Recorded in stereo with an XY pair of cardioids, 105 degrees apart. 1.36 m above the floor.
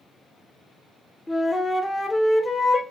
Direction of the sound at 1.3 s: 25° left.